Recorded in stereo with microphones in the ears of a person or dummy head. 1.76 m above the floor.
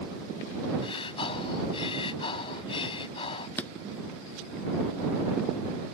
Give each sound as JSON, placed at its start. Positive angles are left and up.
{"t": 0.8, "sound": "breathing", "side_deg": 25}
{"t": 3.6, "sound": "a thud", "side_deg": 10}